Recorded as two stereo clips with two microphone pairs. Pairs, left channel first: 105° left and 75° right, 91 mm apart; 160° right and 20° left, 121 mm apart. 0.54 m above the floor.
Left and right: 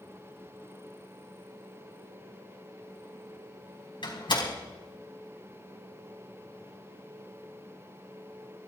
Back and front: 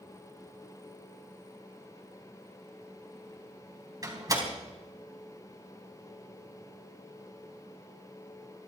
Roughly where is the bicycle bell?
No bicycle bell in this recording.